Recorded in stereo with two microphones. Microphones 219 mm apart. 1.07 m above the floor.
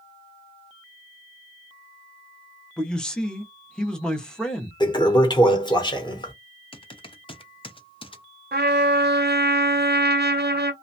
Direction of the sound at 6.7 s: 25° left (ahead or behind).